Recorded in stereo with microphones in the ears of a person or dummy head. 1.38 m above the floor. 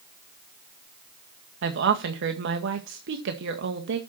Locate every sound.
1.6 s a woman speaking: 60° right (ahead or behind), 1.9 m